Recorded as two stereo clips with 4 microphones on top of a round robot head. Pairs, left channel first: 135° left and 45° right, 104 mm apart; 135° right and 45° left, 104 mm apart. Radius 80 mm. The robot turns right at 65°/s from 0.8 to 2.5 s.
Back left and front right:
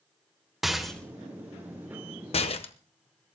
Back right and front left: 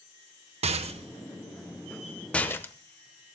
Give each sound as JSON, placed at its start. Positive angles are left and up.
{"t": 0.6, "sound": "a rattle", "azimuth_deg": 45, "distance_m": 1.3}